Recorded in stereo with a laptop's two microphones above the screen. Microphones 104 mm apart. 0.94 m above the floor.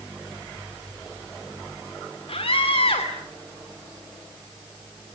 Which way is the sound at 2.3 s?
65° left (ahead or behind).